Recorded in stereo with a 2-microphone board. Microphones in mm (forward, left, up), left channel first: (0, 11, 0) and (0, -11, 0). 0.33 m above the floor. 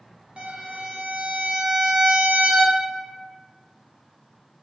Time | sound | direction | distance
0.4 | a violin | 65° right (ahead or behind) | 0.6 m